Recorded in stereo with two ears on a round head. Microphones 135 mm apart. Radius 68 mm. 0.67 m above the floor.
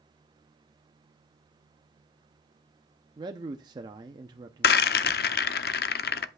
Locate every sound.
3.2 s a man speaking: 30° right (ahead or behind), 0.6 m
4.6 s a rattle: 70° left (ahead or behind), 0.6 m